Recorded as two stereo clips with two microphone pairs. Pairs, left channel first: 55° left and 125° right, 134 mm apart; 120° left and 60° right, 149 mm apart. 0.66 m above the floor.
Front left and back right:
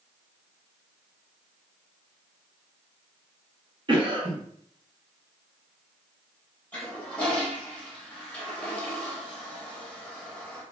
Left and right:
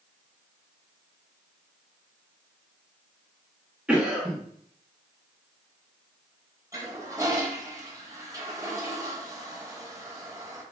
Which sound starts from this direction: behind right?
A cough, at 3.9 s.